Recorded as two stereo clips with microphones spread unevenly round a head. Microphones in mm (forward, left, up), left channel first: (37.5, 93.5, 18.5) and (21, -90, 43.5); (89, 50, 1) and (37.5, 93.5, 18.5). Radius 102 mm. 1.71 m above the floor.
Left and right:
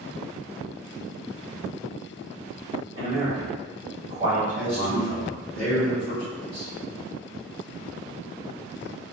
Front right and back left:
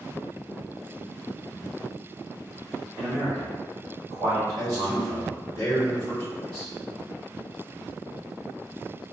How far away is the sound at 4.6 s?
About 1.3 m.